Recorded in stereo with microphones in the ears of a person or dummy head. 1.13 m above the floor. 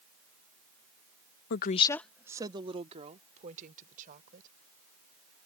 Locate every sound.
1.5 s a woman speaking: 55° left (ahead or behind); by 4.5 s 50° right (ahead or behind)